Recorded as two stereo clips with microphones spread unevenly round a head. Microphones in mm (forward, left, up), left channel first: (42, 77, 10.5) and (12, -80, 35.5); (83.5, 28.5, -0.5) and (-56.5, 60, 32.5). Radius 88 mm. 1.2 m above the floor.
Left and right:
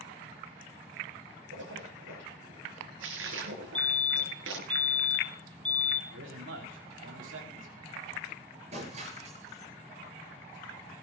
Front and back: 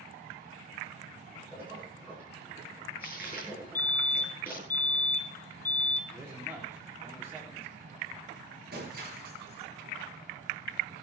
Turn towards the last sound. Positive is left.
turn(degrees=-155)